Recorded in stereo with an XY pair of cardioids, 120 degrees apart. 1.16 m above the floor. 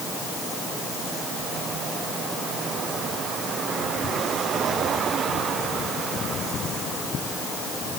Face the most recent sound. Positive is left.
No sound to turn to.